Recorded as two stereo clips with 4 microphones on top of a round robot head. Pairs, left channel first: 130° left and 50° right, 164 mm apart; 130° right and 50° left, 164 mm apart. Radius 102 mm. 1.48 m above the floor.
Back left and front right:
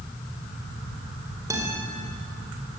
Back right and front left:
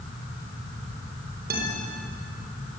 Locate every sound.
1.5 s a guitar: 20° left, 4.5 m